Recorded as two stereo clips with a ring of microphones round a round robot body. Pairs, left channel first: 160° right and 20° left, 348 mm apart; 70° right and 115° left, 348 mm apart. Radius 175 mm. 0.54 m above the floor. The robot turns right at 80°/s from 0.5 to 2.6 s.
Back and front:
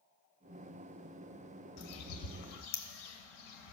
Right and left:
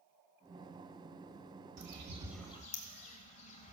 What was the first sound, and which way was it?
A bird, 155° left.